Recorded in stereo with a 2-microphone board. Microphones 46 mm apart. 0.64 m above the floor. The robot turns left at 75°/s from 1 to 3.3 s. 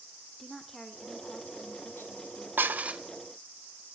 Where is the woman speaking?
170° left, 2 m; by 2.5 s 60° left, 2 m.